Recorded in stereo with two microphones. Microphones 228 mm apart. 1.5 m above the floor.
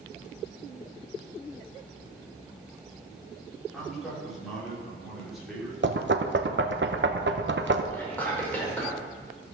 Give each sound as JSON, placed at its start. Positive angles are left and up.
{"t": 3.7, "sound": "a man speaking", "side_deg": 0, "distance_m": 4.5}
{"t": 5.8, "sound": "knocking", "side_deg": -55, "distance_m": 0.8}
{"t": 7.9, "sound": "whispering", "side_deg": 10, "distance_m": 5.0}